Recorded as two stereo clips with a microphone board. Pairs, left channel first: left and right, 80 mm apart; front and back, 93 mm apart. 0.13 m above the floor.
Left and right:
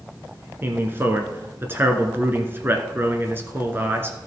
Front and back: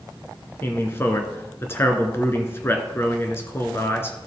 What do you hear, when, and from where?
0.6 s a man speaking: 45° right, 1.4 m